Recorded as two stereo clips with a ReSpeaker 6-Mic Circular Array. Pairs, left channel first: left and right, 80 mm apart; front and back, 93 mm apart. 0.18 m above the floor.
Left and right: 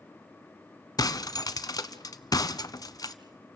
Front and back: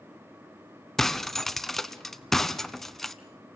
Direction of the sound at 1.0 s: 85° left.